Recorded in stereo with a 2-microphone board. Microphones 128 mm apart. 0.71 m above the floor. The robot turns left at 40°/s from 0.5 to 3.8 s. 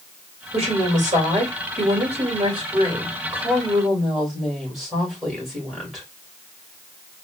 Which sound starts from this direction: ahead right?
A woman speaking, at 0.5 s.